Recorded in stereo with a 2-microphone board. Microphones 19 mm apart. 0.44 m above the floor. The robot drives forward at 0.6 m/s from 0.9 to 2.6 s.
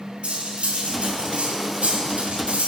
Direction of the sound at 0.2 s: 65° right (ahead or behind).